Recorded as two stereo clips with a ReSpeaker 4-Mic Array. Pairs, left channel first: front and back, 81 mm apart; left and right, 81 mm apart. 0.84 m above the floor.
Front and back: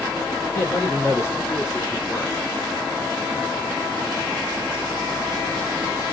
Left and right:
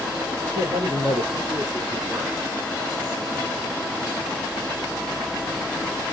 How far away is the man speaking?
About 4 m.